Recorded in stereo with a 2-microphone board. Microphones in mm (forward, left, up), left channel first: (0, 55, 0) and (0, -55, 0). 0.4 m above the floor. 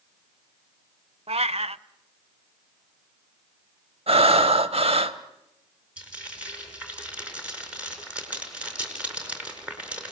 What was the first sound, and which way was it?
A cat meowing, 60° right (ahead or behind).